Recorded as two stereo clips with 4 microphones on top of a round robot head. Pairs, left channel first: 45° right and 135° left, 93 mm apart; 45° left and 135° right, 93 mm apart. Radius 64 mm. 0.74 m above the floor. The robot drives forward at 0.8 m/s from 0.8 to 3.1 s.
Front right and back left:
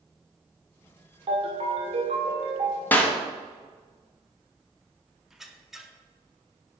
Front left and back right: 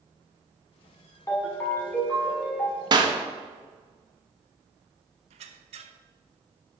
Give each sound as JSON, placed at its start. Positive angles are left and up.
{"t": 1.3, "sound": "a ringtone", "azimuth_deg": 105, "distance_m": 1.9}
{"t": 2.9, "sound": "a clap", "azimuth_deg": -110, "distance_m": 1.0}
{"t": 5.3, "sound": "a squeak", "azimuth_deg": -140, "distance_m": 0.6}